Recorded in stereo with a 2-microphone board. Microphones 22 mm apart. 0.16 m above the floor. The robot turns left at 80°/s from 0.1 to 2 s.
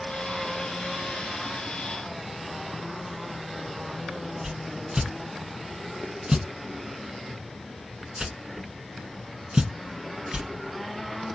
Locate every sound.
4.4 s a whoosh: 35° right (ahead or behind), 0.8 m